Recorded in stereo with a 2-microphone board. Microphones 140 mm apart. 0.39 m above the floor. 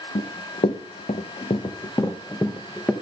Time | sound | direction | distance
0.1 | running footsteps | 75° left (ahead or behind) | 1.3 m